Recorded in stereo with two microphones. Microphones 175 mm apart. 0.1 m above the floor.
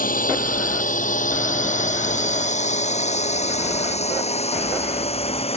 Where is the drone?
55° left (ahead or behind); by 5.6 s 35° left (ahead or behind).